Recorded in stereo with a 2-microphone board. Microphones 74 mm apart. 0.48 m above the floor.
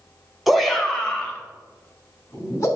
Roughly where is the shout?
Centre.